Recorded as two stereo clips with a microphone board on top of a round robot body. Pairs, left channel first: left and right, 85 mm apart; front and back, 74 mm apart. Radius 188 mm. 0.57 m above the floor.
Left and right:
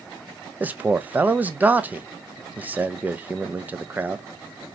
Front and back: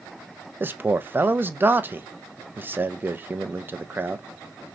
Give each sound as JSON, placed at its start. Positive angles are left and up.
{"t": 0.6, "sound": "a man speaking", "azimuth_deg": -145, "distance_m": 0.7}